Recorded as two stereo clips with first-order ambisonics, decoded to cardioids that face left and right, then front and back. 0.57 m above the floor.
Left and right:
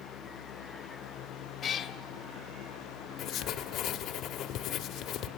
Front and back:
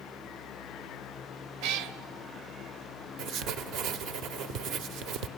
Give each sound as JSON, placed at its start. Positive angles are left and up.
{"t": 1.6, "sound": "a cat meowing", "azimuth_deg": 155, "distance_m": 0.9}
{"t": 3.2, "sound": "writing", "azimuth_deg": 140, "distance_m": 1.0}